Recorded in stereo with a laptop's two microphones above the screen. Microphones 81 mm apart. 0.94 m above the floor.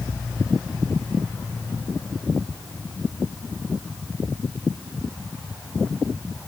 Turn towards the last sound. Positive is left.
No sound to turn to.